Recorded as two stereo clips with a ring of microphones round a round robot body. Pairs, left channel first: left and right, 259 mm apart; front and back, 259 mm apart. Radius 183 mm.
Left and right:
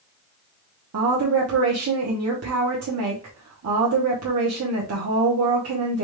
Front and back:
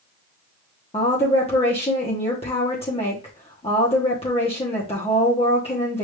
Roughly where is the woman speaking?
Right.